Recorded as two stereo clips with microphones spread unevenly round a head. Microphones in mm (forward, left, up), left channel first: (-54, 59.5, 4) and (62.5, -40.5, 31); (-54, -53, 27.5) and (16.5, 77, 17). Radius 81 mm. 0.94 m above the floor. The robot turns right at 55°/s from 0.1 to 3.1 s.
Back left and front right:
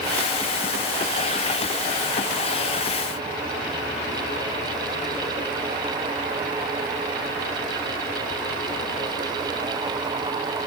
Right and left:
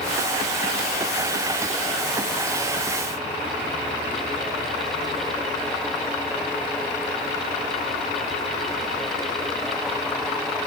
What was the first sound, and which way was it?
Only background noise.